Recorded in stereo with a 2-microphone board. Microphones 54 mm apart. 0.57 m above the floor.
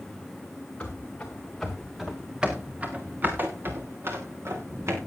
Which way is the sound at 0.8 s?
25° left (ahead or behind).